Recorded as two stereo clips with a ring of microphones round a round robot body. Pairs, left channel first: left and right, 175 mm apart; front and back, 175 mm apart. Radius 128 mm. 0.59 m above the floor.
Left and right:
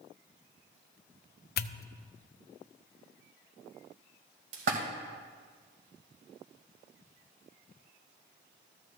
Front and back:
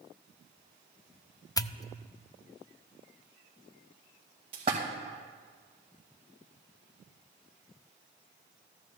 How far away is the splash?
About 2 m.